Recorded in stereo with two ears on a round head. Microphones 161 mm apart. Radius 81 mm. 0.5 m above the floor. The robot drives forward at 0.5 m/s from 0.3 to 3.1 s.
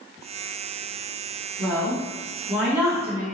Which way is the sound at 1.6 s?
10° right (ahead or behind).